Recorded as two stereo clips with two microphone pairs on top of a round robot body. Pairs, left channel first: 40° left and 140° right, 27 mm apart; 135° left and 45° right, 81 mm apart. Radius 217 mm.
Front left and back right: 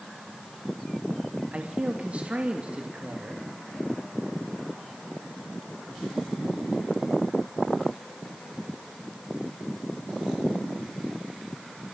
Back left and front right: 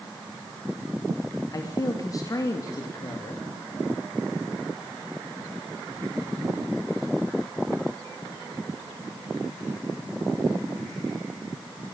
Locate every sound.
1.5 s a man speaking: straight behind, 3 m